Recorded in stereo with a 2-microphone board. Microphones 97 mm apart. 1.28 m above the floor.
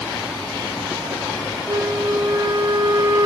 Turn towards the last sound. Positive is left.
turn(degrees=-35)  # may be behind; listen again after turning